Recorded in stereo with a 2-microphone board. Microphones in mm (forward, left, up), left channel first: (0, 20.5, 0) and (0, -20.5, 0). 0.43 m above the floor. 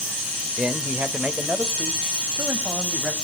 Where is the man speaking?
30° right (ahead or behind), 1.4 m; by 3.1 s 50° right (ahead or behind), 2.5 m.